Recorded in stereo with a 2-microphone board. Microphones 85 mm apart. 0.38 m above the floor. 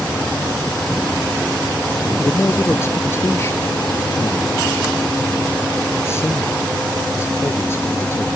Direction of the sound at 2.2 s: 30° left (ahead or behind).